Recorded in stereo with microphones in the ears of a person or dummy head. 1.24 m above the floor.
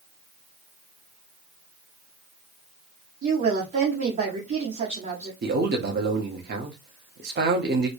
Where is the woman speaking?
40° right (ahead or behind), 1.1 m.